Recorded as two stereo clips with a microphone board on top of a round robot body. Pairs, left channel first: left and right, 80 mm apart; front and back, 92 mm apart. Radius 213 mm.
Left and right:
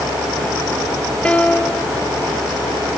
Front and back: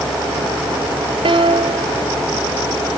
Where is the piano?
165° left.